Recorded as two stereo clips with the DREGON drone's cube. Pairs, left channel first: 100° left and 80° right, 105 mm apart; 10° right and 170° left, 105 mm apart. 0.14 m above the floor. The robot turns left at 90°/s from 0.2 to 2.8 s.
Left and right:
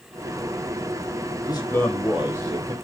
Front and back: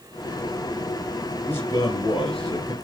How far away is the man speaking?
About 3 m.